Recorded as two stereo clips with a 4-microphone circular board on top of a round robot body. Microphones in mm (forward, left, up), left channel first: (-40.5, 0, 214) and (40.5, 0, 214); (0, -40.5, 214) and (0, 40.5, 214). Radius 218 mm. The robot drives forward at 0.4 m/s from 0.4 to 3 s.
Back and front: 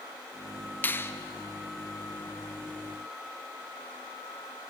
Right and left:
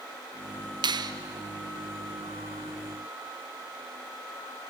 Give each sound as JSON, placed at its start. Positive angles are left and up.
{"t": 0.8, "sound": "a finger snap", "azimuth_deg": 115, "distance_m": 0.7}